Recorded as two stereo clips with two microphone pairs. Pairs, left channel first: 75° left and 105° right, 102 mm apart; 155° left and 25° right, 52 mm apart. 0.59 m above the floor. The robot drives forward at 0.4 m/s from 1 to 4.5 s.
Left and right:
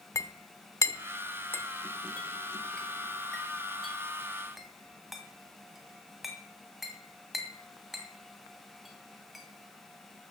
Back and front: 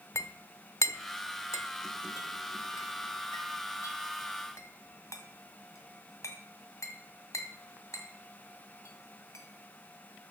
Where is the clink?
135° left, 0.7 m; by 9.4 s 165° left, 2.0 m.